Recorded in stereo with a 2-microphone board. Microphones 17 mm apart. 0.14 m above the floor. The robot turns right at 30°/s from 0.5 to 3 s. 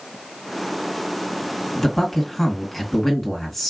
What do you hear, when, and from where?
1.8 s a man speaking: 25° left (ahead or behind), 1.3 m; by 3.7 s 15° left (ahead or behind), 1.3 m